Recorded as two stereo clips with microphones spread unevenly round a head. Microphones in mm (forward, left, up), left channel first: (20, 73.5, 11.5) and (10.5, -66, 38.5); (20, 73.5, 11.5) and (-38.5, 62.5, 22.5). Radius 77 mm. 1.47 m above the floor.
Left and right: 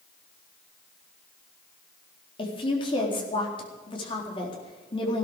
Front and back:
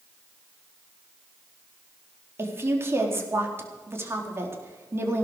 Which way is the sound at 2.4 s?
145° left.